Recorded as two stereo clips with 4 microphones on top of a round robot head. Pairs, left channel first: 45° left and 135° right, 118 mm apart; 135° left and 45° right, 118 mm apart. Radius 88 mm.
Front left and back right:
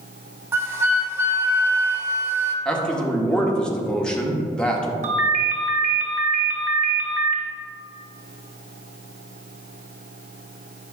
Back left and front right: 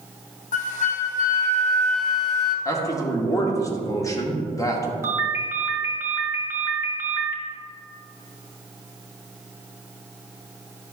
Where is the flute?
155° left, 0.8 m.